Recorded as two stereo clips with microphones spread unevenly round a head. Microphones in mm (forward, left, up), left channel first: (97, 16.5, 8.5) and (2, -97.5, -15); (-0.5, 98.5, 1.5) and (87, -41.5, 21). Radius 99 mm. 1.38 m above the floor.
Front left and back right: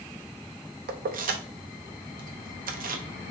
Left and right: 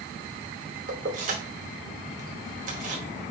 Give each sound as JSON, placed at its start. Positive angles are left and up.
{"t": 0.9, "sound": "keys jangling", "azimuth_deg": -105, "distance_m": 0.8}